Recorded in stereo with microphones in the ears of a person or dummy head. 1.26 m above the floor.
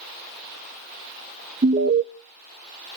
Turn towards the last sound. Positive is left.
turn(degrees=-35)  # may be behind; listen again after turning